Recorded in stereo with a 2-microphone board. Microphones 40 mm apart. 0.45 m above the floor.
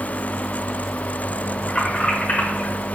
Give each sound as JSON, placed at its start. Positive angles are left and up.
{"t": 1.7, "sound": "keys jangling", "side_deg": 25, "distance_m": 1.3}